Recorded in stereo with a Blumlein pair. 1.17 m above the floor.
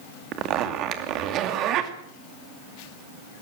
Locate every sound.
0.3 s a zipper: 35° right, 2.5 m